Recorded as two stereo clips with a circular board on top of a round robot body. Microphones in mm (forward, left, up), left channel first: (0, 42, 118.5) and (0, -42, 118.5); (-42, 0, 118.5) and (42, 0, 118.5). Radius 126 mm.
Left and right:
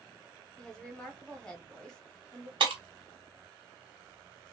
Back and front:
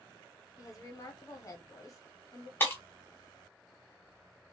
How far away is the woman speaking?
About 1.6 m.